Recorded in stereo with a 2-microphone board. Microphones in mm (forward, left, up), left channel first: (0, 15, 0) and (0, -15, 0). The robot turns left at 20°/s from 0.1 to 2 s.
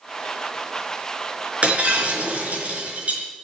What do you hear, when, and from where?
1.6 s breaking glass: 50° right (ahead or behind), 4.5 m; by 3.2 s 55° right (ahead or behind), 4.5 m